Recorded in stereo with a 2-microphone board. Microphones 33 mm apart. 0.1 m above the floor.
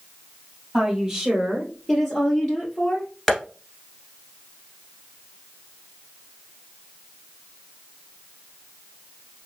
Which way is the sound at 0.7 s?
5° right (ahead or behind).